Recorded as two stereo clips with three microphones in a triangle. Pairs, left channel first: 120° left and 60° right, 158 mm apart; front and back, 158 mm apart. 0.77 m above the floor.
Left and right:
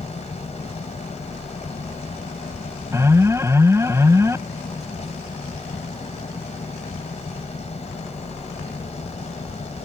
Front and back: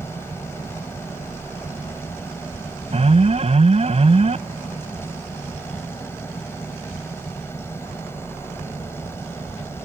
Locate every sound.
0.0 s an engine running: 75° left
2.9 s an alarm: 135° right